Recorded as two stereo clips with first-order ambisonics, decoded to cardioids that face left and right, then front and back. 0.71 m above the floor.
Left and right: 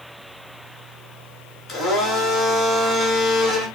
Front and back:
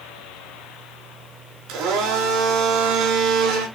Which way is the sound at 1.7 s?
155° left.